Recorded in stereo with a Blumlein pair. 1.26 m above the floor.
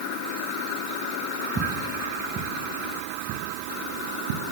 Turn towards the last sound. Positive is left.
turn(degrees=-55)